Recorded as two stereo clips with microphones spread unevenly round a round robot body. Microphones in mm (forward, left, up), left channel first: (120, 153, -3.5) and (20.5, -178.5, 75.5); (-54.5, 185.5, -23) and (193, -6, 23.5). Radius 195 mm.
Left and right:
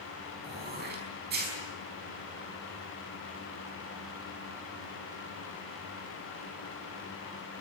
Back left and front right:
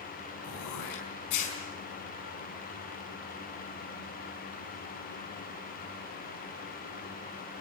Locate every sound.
0.4 s throat clearing: 175° right, 5 m